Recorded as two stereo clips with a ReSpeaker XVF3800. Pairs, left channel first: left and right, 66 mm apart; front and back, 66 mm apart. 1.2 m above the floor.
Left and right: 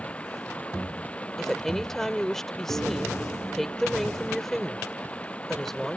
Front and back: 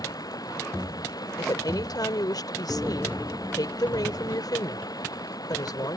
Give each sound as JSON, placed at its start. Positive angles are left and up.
{"t": 0.0, "sound": "running water", "azimuth_deg": 20}
{"t": 1.4, "sound": "a woman speaking", "azimuth_deg": 5}